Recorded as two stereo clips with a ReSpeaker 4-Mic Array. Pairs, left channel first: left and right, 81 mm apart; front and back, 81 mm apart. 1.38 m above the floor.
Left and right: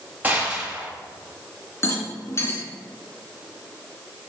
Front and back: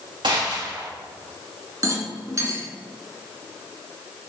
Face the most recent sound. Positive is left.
turn(degrees=140)